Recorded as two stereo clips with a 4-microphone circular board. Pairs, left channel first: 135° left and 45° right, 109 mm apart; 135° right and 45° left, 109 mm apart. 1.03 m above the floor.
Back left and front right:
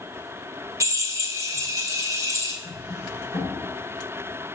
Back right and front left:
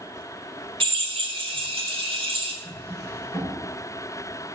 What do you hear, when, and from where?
0.8 s a drill: 15° left, 1.4 m
2.6 s a drawer: 140° left, 4.5 m